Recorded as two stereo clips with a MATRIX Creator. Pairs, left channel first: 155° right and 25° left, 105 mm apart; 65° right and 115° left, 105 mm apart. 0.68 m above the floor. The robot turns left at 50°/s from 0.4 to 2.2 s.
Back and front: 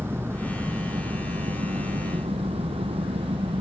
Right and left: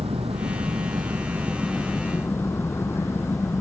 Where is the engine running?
90° left; by 3.6 s straight ahead.